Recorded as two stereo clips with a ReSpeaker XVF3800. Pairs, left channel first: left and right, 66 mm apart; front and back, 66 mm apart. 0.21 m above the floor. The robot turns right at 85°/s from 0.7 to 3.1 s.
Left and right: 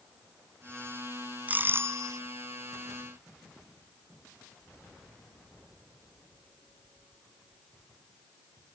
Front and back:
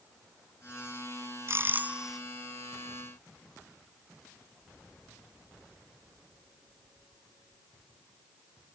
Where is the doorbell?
150° right; by 2.2 s 85° right.